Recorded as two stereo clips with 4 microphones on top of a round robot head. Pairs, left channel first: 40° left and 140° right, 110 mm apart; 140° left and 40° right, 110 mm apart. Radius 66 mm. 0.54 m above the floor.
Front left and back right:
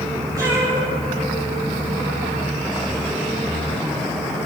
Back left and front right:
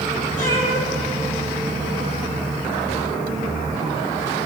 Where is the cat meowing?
155° left, 9.5 m; by 2.3 s 145° left, 11 m.